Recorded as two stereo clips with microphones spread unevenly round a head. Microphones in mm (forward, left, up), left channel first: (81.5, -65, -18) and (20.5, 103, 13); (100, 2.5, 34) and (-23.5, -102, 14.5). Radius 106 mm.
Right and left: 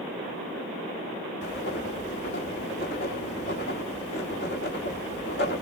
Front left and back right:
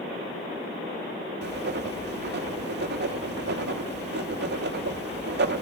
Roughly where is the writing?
Behind right.